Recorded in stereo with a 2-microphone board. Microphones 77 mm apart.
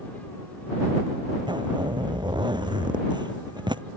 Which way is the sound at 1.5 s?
85° right.